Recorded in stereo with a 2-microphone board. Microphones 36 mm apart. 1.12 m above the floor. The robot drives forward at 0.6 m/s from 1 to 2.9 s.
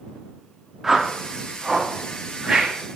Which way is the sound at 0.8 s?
5° right (ahead or behind).